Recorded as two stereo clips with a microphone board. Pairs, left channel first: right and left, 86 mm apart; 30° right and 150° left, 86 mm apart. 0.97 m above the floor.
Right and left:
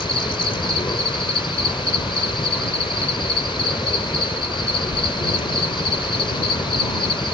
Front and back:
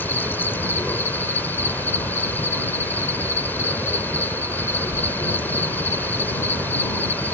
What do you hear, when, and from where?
0.0 s an insect: 95° right